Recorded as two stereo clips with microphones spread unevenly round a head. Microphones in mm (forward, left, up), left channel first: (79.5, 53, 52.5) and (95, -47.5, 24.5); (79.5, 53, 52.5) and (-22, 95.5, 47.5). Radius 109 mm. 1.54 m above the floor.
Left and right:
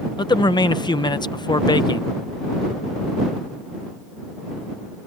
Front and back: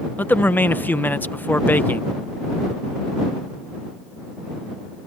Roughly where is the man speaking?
Ahead left.